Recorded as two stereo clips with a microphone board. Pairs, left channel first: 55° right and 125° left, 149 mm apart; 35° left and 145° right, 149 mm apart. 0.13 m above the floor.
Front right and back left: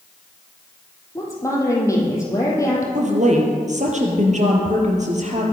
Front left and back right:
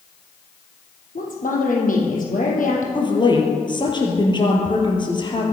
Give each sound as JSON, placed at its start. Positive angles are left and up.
{"t": 1.1, "sound": "a woman speaking", "azimuth_deg": 10, "distance_m": 4.5}
{"t": 3.0, "sound": "a woman speaking", "azimuth_deg": 90, "distance_m": 4.0}